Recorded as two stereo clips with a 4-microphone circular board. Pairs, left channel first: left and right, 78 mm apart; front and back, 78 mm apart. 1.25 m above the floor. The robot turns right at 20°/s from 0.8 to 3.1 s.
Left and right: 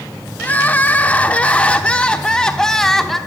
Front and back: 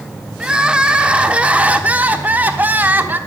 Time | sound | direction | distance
0.4 | crying | 125° left | 0.9 m